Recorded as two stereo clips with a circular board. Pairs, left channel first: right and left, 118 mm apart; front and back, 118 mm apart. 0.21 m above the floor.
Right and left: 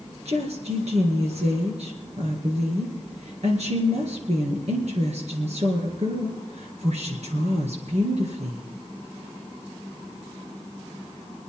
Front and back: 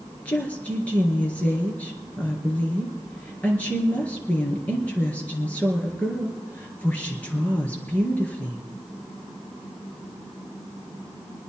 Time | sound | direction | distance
0.2 | a woman speaking | 75° left | 4 m